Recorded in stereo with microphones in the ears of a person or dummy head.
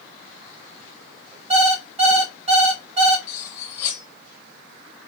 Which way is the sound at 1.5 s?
35° right (ahead or behind).